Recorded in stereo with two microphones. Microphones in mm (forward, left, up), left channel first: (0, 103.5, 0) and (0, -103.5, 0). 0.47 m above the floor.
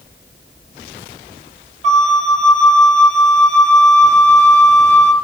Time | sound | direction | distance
1.8 | a flute | 35° right (ahead or behind) | 1.9 m